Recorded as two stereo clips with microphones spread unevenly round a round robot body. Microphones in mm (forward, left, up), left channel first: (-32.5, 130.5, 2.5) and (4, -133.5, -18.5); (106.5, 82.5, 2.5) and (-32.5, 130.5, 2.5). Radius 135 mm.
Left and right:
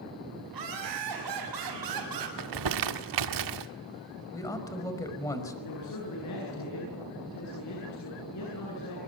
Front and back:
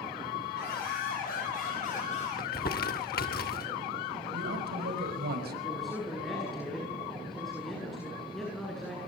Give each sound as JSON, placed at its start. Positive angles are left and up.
{"t": 0.5, "sound": "laughter", "azimuth_deg": -70, "distance_m": 7.5}
{"t": 2.4, "sound": "crumpling", "azimuth_deg": -70, "distance_m": 1.7}
{"t": 4.3, "sound": "a man speaking", "azimuth_deg": 175, "distance_m": 5.5}
{"t": 5.6, "sound": "a man speaking", "azimuth_deg": 70, "distance_m": 9.5}